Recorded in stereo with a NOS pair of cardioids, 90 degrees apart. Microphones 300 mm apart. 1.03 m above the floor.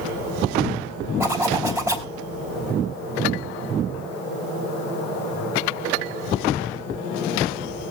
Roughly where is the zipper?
Ahead.